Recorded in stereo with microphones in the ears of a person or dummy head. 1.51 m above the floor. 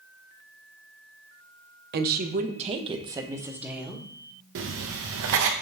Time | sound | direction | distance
1.9 | a woman speaking | 55° right (ahead or behind) | 1.1 m
4.5 | writing | 70° right (ahead or behind) | 1.2 m